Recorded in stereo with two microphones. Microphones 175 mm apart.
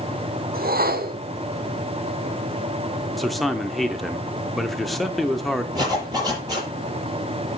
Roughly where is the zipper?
Right.